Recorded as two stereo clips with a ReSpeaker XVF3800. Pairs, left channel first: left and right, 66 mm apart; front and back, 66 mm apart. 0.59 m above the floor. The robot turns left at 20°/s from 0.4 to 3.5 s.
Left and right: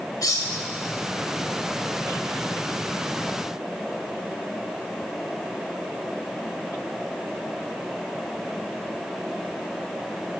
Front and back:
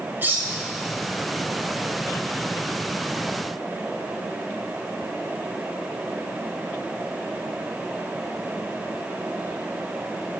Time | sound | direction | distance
0.2 | cutlery clinking | 120° left | 1.6 m